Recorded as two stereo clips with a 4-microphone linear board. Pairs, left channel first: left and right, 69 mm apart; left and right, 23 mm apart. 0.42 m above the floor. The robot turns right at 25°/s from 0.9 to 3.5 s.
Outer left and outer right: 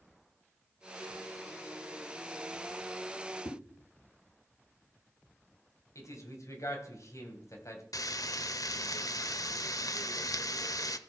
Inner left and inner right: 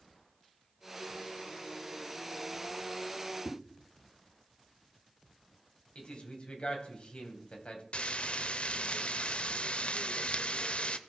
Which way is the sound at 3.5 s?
80° left.